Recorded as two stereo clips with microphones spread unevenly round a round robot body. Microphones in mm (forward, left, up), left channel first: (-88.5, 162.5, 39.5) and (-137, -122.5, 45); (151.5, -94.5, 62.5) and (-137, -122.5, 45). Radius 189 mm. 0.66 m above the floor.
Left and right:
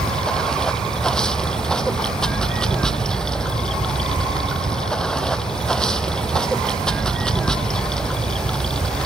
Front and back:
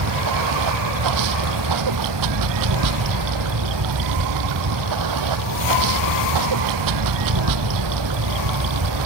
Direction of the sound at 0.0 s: 170° left.